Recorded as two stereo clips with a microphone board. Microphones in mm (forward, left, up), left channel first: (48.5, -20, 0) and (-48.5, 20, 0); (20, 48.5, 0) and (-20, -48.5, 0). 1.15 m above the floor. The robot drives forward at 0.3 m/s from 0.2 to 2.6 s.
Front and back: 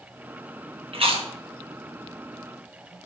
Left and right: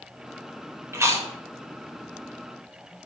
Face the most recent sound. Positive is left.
turn(degrees=-175)